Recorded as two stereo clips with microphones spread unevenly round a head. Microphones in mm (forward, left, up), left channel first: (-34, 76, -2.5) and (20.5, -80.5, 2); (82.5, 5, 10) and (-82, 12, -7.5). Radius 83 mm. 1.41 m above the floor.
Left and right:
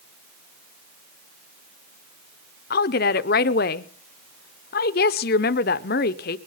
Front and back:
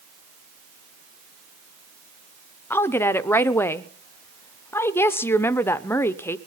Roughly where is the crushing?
No crushing in this recording.